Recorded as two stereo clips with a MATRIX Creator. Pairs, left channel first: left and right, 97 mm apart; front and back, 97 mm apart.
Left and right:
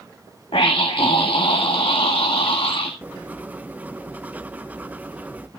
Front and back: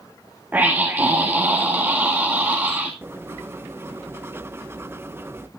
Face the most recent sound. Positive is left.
turn(degrees=-145)